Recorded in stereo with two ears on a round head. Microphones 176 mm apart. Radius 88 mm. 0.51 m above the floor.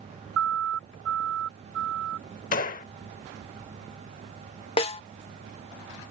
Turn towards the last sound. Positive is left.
turn(degrees=30)  # may be behind; listen again after turning